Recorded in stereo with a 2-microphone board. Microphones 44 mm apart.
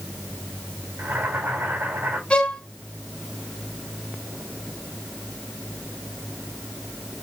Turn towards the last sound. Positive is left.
turn(degrees=25)  # may be behind; listen again after turning